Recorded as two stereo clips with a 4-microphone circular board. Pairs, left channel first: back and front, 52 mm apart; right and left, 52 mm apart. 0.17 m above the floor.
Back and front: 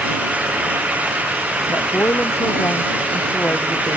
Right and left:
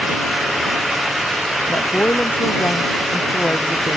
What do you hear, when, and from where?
1.7 s a woman speaking: 140° right